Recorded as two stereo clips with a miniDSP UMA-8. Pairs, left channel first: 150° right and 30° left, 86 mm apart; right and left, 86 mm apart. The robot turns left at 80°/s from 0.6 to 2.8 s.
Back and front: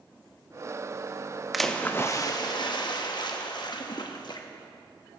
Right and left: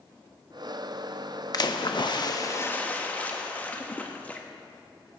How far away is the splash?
About 0.9 m.